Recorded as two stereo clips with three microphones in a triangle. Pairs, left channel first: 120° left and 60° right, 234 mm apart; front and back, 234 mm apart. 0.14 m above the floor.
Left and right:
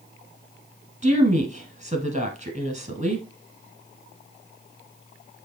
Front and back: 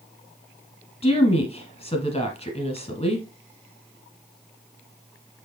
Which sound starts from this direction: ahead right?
A woman speaking, at 1.0 s.